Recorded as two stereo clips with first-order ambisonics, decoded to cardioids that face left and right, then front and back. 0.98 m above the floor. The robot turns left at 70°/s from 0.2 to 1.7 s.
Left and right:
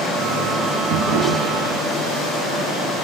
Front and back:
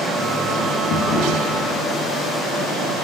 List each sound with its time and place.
0.9 s a drawer: 45° right, 1.9 m; by 1.9 s 100° right, 1.9 m